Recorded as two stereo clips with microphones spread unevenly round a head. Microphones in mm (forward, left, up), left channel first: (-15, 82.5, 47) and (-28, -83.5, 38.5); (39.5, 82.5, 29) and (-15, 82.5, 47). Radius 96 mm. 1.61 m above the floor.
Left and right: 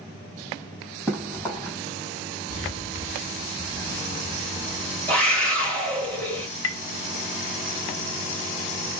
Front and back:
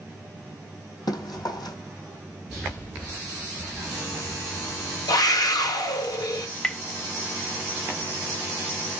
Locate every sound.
1.1 s running footsteps: 5° left, 3 m
2.5 s footsteps: 105° right, 1.8 m; by 6.1 s 45° left, 2.5 m
5.1 s a scream: straight ahead, 2 m
6.6 s tapping: 85° left, 0.7 m